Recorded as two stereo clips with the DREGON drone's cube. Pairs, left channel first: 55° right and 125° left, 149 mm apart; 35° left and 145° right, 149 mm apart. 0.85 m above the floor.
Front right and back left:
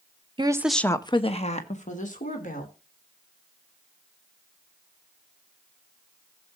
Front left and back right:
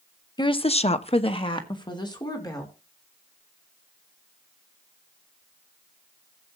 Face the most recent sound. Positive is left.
turn(degrees=-30)